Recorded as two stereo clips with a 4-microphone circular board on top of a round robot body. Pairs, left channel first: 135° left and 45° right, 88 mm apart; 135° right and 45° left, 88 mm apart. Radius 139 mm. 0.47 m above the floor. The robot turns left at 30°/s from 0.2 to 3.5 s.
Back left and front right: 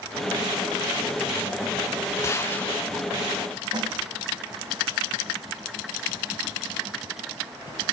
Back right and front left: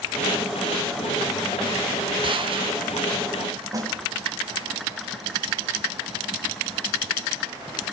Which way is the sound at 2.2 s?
75° left.